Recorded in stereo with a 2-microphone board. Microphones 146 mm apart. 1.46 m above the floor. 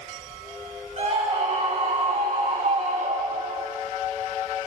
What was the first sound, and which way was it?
A scream, 50° right (ahead or behind).